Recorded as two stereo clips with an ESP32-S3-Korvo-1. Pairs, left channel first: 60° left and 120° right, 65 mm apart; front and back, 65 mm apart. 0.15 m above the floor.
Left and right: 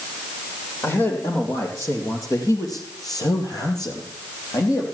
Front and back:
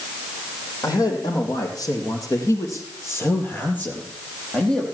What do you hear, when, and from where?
0.8 s a man speaking: 10° left, 5 m; by 4.8 s 80° left, 4.5 m